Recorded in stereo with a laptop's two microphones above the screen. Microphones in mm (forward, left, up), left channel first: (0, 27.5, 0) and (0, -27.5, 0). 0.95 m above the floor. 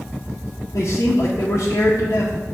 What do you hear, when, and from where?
0.7 s a man speaking: 65° left (ahead or behind), 0.5 m